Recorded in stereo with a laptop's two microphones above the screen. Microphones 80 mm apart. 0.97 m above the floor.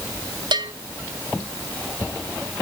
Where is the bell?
65° right (ahead or behind), 1.8 m.